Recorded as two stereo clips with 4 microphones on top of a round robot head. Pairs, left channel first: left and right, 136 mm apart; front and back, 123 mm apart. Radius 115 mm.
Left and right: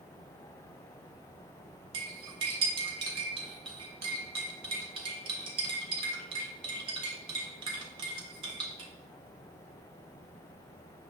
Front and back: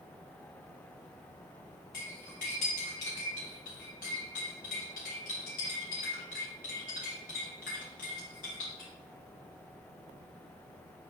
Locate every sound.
1.9 s cutlery clinking: 45° right, 0.8 m